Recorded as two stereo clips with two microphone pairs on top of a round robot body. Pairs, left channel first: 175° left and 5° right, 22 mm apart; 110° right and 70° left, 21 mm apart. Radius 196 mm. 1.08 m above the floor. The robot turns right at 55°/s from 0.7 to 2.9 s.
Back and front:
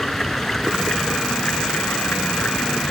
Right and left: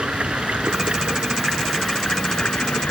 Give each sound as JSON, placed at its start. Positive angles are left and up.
{"t": 0.0, "sound": "running water", "azimuth_deg": 100}